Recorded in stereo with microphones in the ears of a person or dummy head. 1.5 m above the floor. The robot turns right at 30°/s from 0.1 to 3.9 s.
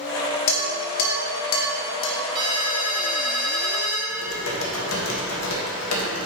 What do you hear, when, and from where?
0.5 s dishes clattering: 40° left (ahead or behind), 1.4 m; by 2.2 s 65° left (ahead or behind), 1.4 m
2.4 s a ringtone: 30° right, 1.4 m; by 4.0 s 15° left, 1.4 m
4.1 s typing on a keyboard: 85° left, 1.7 m